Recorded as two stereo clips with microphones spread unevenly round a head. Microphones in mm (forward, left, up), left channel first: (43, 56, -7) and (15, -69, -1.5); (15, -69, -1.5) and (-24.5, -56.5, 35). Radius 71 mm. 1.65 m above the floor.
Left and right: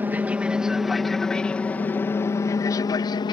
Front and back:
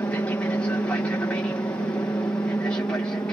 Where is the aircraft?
30° right; by 3.3 s 25° left.